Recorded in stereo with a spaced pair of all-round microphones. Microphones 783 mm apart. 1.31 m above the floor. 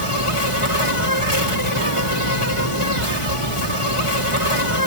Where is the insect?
40° left (ahead or behind), 1.9 m.